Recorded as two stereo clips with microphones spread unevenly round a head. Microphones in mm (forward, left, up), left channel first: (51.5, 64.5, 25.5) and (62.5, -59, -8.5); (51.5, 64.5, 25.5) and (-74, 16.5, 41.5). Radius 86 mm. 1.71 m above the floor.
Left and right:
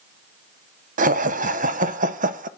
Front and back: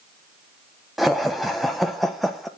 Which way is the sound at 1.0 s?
75° right.